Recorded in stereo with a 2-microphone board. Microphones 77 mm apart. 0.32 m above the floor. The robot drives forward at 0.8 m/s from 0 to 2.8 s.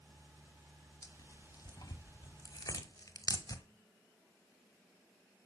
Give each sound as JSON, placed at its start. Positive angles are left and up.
{"t": 1.0, "sound": "tearing paper", "side_deg": 45, "distance_m": 1.8}